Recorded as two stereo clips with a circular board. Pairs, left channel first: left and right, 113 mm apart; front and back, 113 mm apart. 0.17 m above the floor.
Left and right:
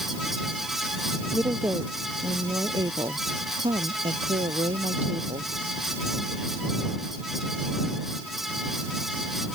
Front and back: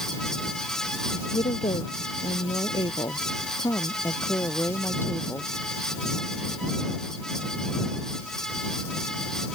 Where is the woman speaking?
20° right; by 5.5 s 75° right.